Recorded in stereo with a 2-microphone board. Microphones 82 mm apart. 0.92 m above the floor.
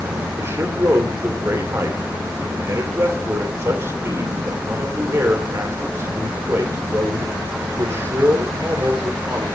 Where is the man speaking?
35° right (ahead or behind), 3 m.